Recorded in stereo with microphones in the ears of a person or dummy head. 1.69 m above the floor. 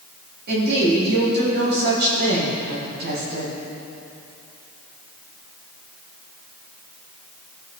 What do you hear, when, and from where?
0.5 s a woman speaking: 60° right (ahead or behind), 2 m